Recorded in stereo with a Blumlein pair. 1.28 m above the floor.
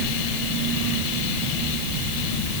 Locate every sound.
Only background noise.